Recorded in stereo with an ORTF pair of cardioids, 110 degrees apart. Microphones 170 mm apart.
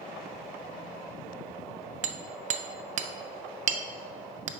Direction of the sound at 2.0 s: 45° right.